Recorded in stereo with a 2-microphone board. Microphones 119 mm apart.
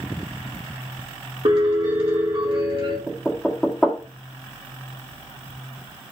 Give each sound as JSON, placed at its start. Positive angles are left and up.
{"t": 1.4, "sound": "a piano", "side_deg": -50, "distance_m": 3.0}
{"t": 3.1, "sound": "knocking", "side_deg": 10, "distance_m": 1.4}